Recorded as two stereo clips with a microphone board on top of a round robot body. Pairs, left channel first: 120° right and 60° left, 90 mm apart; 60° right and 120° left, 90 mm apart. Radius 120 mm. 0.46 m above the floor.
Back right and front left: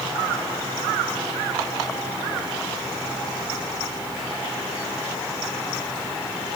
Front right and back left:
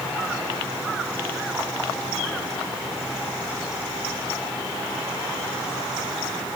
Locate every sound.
Only background noise.